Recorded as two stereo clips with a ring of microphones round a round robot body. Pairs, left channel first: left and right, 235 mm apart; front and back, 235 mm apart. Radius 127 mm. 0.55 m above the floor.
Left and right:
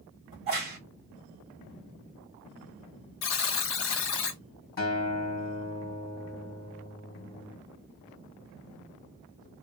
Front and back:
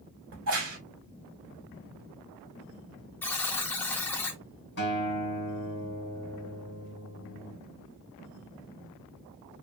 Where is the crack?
155° right, 1.7 m.